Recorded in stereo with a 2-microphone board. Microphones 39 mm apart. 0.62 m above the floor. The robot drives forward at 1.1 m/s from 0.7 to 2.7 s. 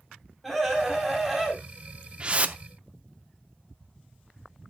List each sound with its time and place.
0.4 s a scream: centre (ahead or behind), 3.5 m; by 1.6 s 5° left (ahead or behind), 2.5 m
2.2 s a whoosh: 25° right (ahead or behind), 0.8 m; by 2.6 s 40° right (ahead or behind), 0.5 m